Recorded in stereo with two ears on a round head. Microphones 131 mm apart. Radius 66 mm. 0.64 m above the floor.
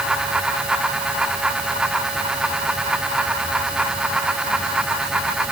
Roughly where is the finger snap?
I don't hear a finger snap.